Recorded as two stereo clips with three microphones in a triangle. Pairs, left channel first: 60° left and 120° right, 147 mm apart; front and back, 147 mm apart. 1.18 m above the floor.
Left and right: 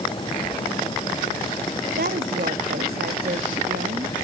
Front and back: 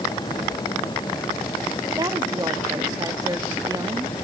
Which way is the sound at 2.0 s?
115° right.